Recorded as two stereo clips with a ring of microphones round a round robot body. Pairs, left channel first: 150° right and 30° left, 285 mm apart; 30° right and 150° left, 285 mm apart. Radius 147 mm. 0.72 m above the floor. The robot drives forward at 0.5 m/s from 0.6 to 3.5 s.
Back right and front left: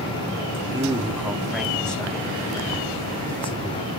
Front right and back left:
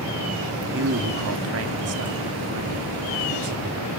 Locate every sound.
0.7 s a man speaking: 105° left, 2.0 m; by 3.9 s 140° left, 2.5 m